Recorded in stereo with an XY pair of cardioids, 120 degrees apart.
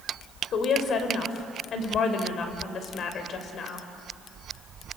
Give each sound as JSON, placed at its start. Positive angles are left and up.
{"t": 0.5, "sound": "a woman speaking", "azimuth_deg": 55, "distance_m": 4.0}